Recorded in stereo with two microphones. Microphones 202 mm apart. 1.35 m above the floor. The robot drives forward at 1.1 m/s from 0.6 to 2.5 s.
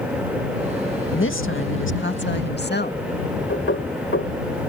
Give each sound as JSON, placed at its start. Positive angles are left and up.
{"t": 1.1, "sound": "a woman speaking", "side_deg": 75}
{"t": 3.5, "sound": "knocking", "side_deg": 90}